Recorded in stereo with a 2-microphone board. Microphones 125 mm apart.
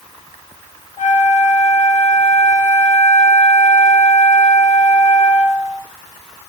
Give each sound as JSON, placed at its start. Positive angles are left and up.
{"t": 1.0, "sound": "a flute", "side_deg": 75, "distance_m": 1.1}